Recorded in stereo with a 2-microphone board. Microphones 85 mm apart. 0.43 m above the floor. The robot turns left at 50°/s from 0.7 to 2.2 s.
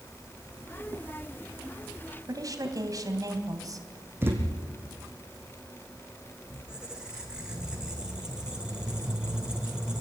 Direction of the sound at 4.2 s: 25° right (ahead or behind).